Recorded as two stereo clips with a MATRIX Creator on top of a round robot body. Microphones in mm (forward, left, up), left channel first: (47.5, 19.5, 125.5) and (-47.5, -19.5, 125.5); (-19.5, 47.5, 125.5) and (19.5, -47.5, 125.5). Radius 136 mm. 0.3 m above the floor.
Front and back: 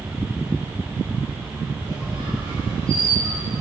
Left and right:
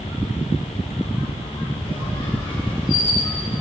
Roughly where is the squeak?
Behind left.